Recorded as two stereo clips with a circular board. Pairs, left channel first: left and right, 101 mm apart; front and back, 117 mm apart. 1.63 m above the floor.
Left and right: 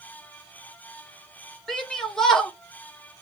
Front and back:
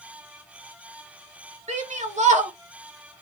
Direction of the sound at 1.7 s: 175° left.